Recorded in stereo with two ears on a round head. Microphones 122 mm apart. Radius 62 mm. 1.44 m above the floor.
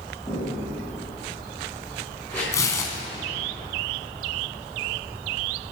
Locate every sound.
0.3 s footsteps: 20° left (ahead or behind), 7 m; by 2.4 s 15° left (ahead or behind), 8.5 m
2.5 s tearing paper: 25° left (ahead or behind), 2 m